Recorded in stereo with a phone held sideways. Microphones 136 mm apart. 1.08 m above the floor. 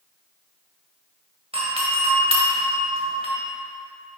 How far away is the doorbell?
About 1.5 m.